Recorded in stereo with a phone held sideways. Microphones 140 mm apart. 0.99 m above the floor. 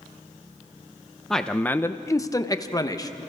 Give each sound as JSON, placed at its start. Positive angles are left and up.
{"t": 1.3, "sound": "a man speaking", "side_deg": 5, "distance_m": 0.8}